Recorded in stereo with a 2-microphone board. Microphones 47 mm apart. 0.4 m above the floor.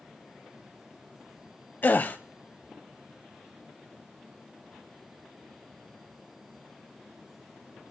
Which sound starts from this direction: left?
A gasp, at 1.8 s.